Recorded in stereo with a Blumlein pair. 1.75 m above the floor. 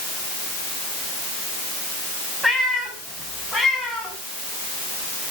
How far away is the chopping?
I don't hear chopping.